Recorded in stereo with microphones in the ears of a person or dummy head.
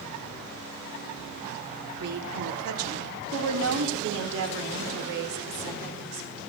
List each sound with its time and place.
2.0 s a woman speaking: 75° right (ahead or behind), 2.5 m; by 6.4 s 60° right (ahead or behind), 4.5 m